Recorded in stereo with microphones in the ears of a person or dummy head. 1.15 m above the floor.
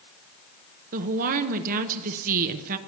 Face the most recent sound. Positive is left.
turn(degrees=-50)  # may be behind; listen again after turning